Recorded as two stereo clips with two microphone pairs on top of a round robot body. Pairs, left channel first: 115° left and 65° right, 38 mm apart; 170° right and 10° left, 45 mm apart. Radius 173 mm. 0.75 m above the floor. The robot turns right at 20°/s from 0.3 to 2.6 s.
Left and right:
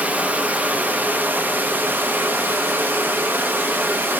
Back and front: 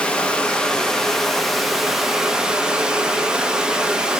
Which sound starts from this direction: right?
Running water, at 0.0 s.